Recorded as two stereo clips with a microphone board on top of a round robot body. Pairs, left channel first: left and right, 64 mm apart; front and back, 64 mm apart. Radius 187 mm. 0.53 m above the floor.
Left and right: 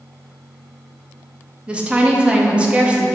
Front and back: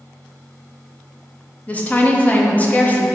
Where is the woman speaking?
35° right, 0.8 m.